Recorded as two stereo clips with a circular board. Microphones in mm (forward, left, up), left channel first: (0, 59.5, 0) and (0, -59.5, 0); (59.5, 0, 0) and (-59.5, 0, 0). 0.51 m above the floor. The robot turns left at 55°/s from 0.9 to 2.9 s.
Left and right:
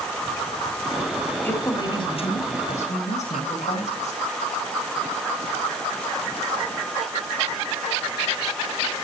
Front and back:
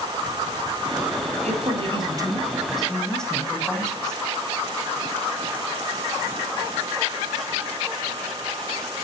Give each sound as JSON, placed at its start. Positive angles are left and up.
{"t": 1.4, "sound": "a woman speaking", "azimuth_deg": 165, "distance_m": 4.0}